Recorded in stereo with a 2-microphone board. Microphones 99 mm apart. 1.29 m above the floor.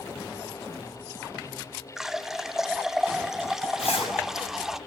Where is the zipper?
80° left, 6 m.